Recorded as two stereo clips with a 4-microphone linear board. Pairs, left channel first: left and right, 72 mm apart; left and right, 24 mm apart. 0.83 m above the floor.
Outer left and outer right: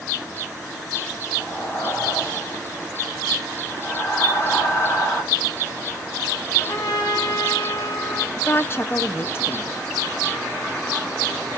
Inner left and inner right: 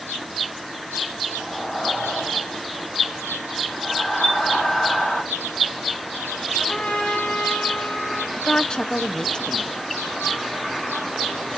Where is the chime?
35° left (ahead or behind), 3 m.